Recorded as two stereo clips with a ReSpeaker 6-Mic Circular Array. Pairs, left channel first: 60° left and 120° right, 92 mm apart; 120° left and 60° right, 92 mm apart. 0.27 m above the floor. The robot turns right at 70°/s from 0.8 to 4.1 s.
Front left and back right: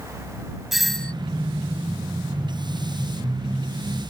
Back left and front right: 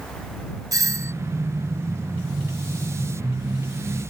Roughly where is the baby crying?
No baby crying in this recording.